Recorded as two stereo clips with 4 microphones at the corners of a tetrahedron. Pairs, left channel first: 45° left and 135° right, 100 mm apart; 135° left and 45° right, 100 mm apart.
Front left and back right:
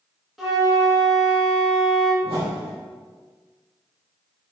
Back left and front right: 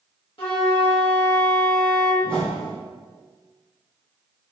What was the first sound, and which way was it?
A flute, 135° left.